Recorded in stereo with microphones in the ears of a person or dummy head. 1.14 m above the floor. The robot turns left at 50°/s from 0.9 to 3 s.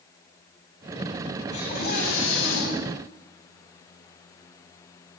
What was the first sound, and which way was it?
A scream, 140° left.